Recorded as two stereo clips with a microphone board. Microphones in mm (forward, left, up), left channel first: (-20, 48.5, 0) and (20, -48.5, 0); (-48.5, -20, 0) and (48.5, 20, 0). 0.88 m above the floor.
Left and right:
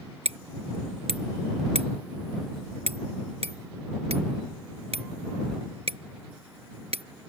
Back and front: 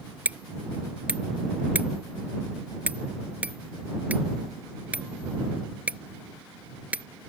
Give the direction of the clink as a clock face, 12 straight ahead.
No clink in this recording.